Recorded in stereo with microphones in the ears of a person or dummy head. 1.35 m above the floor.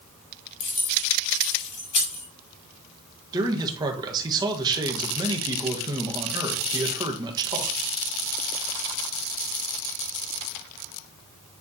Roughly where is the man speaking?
Right.